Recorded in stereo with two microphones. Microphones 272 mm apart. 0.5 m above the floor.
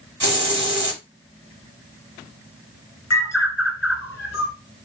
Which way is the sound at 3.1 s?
65° left (ahead or behind).